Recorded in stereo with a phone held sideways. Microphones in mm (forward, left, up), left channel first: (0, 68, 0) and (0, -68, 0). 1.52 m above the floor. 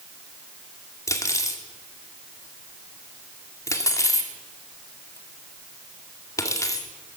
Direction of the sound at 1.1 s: 20° left (ahead or behind).